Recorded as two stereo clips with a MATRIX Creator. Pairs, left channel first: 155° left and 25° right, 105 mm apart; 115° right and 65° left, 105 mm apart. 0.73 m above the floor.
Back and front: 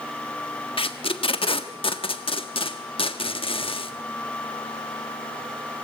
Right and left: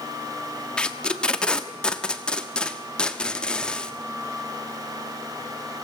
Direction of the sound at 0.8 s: 165° left.